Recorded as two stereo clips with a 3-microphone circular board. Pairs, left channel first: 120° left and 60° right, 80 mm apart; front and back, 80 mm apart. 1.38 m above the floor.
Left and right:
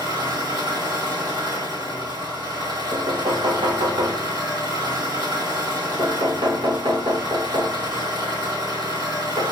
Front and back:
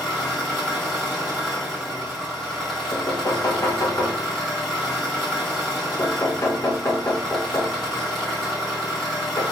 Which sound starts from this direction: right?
An engine running, at 0.0 s.